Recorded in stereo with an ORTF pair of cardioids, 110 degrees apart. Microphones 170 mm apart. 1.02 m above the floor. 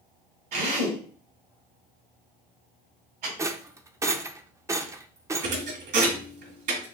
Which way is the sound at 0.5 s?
65° right.